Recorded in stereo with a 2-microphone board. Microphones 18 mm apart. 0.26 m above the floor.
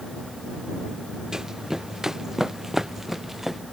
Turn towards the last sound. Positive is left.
turn(degrees=-20)  # may be behind; listen again after turning